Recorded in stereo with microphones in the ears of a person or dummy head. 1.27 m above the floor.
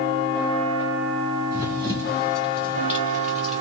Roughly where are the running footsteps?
Right.